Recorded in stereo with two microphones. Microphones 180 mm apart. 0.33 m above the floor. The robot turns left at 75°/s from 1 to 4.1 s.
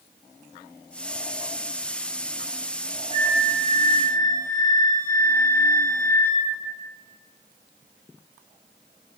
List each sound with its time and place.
3.1 s a flute: 135° left, 0.9 m; by 6.5 s 65° left, 0.9 m